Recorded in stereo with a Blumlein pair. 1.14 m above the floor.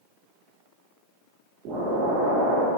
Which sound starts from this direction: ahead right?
An explosion, at 1.6 s.